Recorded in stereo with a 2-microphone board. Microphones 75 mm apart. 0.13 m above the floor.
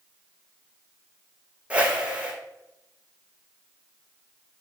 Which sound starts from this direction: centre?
A whoosh, at 1.7 s.